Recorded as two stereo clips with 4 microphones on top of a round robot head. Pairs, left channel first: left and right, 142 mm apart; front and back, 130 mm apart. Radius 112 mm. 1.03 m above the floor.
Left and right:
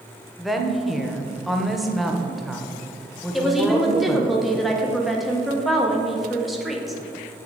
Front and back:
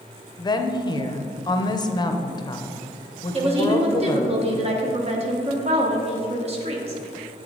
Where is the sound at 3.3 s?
Straight behind, 1.0 m.